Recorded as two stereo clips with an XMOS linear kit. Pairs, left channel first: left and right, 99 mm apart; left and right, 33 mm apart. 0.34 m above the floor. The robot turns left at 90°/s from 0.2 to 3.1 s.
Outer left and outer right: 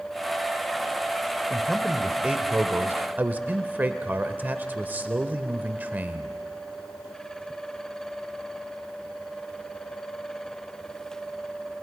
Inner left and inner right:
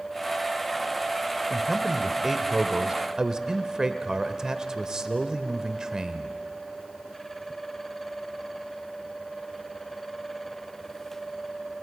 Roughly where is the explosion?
I don't hear an explosion.